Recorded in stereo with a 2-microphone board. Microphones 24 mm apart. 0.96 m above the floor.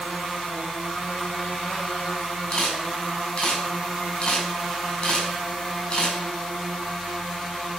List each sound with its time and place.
2.5 s a camera shutter: 40° left (ahead or behind), 6 m